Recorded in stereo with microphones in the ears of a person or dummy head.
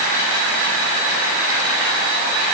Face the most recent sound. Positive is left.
No sound to turn to.